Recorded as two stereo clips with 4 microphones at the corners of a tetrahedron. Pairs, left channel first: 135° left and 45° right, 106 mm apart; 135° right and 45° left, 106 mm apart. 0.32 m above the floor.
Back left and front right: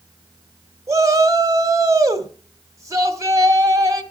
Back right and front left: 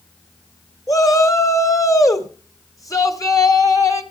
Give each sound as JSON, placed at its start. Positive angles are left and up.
{"t": 0.9, "sound": "a shout", "azimuth_deg": -90, "distance_m": 1.9}